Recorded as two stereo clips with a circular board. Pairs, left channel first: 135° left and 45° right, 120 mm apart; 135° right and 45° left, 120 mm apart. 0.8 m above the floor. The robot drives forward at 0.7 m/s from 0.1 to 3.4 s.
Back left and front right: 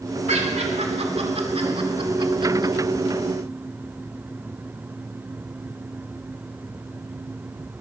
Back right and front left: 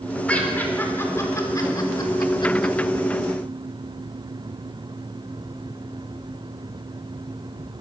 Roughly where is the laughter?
Ahead right.